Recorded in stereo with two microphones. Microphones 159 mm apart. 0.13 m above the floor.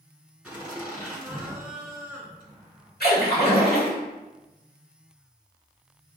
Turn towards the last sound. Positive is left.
turn(degrees=80)